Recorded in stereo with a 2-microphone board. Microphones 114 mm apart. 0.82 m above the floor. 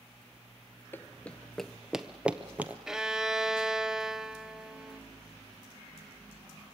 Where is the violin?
5° right (ahead or behind), 0.6 m.